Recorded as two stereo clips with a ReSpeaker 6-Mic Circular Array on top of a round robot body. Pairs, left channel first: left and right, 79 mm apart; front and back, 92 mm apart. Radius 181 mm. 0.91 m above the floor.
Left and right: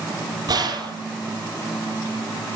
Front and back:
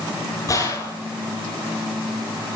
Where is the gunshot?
55° right, 8.5 m.